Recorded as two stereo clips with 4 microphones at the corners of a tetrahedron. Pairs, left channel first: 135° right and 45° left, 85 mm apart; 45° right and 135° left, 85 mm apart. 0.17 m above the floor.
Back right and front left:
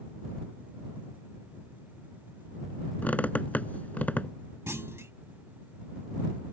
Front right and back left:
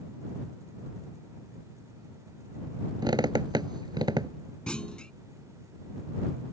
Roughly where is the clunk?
Ahead left.